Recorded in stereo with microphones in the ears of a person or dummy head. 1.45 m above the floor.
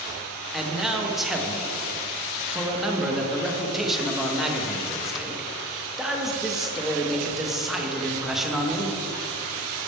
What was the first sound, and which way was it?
A man speaking, centre (ahead or behind).